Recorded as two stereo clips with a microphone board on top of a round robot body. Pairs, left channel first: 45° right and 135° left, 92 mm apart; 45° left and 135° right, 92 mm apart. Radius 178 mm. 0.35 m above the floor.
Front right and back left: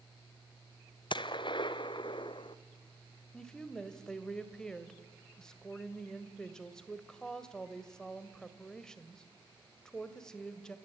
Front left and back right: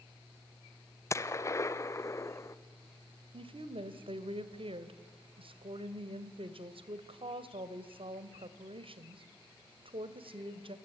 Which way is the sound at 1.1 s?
15° right.